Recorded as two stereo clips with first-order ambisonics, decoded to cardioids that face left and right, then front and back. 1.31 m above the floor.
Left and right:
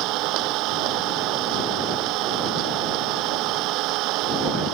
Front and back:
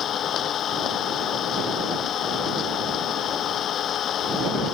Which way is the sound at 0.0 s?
55° right.